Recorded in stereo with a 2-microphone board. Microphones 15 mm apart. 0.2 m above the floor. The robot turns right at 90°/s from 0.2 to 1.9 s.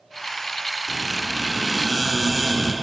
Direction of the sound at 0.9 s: 120° left.